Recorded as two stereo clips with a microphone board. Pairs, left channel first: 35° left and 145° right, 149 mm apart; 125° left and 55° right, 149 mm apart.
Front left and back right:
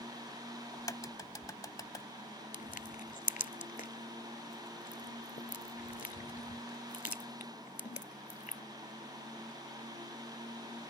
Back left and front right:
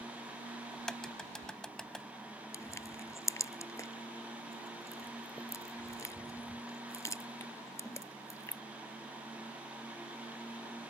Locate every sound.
0.7 s a crack: 45° left
2.5 s crushing: 55° left